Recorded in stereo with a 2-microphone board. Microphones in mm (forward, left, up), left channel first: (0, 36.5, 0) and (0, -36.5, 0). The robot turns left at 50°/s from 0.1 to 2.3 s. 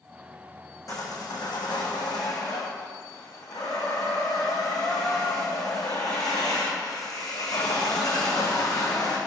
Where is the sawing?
130° left, 3.5 m; by 9.2 s 60° left, 3.5 m.